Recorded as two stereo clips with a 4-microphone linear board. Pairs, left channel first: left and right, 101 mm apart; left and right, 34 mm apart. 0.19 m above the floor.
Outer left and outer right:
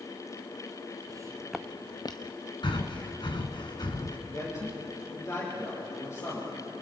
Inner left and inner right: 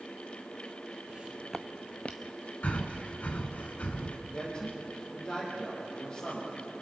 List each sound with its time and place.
1.1 s footsteps: 40° right (ahead or behind), 0.8 m; by 2.4 s 50° left (ahead or behind), 1.2 m
2.6 s breathing: 50° left (ahead or behind), 2.0 m
4.3 s a man speaking: 30° left (ahead or behind), 6 m